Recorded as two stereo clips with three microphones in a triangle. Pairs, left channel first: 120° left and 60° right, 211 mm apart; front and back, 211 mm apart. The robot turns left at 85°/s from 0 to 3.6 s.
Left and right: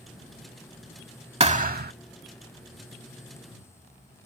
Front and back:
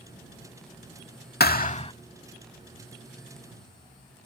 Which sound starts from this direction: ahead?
A thud, at 1.4 s.